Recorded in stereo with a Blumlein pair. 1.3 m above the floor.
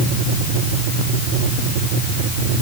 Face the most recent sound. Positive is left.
No sound to turn to.